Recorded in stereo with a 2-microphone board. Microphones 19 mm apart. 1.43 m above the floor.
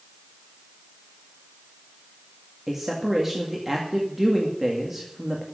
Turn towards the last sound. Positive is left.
turn(degrees=-10)  # may be behind; listen again after turning